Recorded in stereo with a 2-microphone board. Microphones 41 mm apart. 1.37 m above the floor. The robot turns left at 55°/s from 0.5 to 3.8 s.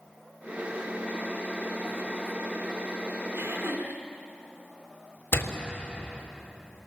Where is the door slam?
65° left (ahead or behind), 3 m.